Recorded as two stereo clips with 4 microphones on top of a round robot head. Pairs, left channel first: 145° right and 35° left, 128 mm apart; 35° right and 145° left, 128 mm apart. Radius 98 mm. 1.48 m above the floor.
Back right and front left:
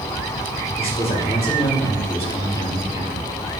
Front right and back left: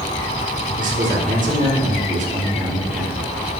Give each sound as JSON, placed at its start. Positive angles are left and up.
{"t": 0.8, "sound": "a man speaking", "azimuth_deg": 170, "distance_m": 3.0}